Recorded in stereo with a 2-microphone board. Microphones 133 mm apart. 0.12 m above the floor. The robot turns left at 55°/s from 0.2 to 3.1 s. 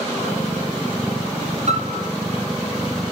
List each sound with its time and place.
1.7 s a piano: 60° right (ahead or behind), 3 m; by 2.1 s 70° right (ahead or behind), 3 m